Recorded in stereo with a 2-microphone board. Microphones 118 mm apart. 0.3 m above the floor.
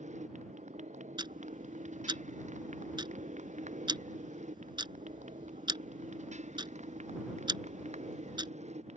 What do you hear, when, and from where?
0.0 s a motorcycle: 90° right; by 9.0 s 70° right (ahead or behind)
1.2 s ticking: 40° right (ahead or behind)